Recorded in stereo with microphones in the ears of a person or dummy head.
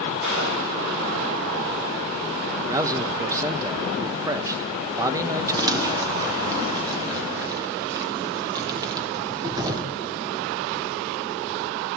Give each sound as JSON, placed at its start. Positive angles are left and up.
{"t": 0.2, "sound": "a gunshot", "side_deg": -65, "distance_m": 4.0}
{"t": 2.7, "sound": "a man speaking", "side_deg": -15, "distance_m": 0.9}
{"t": 5.6, "sound": "crumpling", "side_deg": -15, "distance_m": 1.7}